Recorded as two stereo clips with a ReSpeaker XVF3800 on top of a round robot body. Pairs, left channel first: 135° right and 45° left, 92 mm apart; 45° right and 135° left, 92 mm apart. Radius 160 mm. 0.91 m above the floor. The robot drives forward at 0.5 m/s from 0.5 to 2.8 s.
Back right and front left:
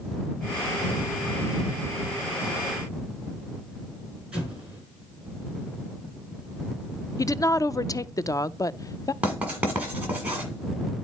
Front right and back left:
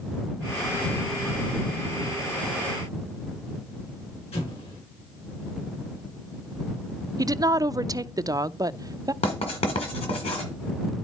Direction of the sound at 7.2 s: Straight behind.